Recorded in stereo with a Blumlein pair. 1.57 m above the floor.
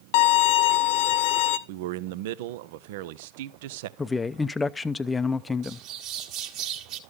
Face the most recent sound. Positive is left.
turn(degrees=-40)